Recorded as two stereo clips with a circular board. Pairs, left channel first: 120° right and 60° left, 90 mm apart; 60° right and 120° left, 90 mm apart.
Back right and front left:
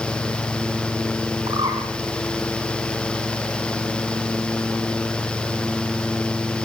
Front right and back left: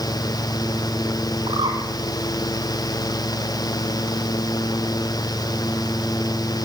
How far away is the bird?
About 5.5 m.